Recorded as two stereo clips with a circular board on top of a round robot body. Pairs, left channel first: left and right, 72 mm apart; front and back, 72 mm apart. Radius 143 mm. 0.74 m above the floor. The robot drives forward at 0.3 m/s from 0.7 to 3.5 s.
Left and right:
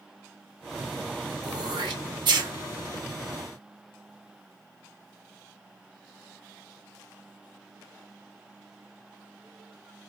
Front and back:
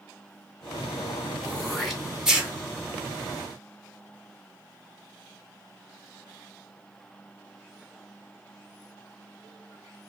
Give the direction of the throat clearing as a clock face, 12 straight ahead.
3 o'clock.